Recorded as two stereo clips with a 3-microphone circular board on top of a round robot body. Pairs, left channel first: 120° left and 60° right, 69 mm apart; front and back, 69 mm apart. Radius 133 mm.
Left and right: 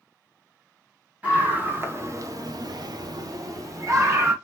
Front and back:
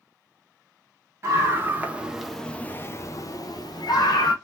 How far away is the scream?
About 1.4 m.